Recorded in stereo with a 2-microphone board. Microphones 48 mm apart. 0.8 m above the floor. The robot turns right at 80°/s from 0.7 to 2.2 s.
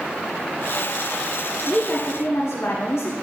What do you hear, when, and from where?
1.7 s a woman speaking: 35° left, 1.6 m; by 3.1 s 75° left, 1.6 m